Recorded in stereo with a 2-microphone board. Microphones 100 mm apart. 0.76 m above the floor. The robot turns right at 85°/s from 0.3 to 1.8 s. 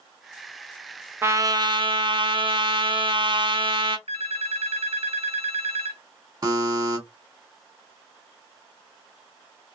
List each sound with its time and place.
1.2 s a trumpet: 155° right, 0.5 m; by 4.0 s 105° right, 0.5 m
4.1 s a phone ringing: 75° right (ahead or behind), 0.9 m
6.4 s a buzzer: 40° right (ahead or behind), 1.5 m